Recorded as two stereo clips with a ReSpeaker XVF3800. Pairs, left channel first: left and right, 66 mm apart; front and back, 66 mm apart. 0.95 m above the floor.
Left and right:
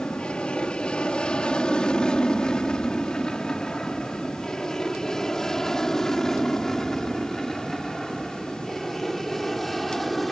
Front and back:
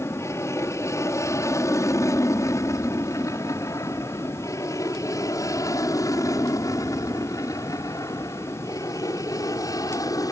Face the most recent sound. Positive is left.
turn(degrees=0)